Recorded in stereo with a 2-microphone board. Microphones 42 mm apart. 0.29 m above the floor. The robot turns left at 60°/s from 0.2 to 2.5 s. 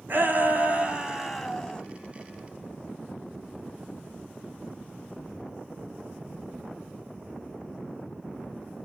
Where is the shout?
110° right, 2.5 m; by 1.8 s 155° left, 2.5 m.